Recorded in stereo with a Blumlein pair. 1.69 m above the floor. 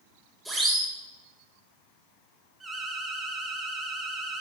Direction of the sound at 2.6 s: 10° right.